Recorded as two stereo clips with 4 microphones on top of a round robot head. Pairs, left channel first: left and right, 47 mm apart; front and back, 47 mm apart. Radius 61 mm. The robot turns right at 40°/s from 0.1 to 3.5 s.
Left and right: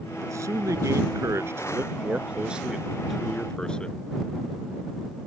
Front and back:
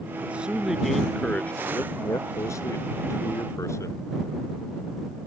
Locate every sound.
0.2 s a man speaking: 115° right; by 4.0 s 15° left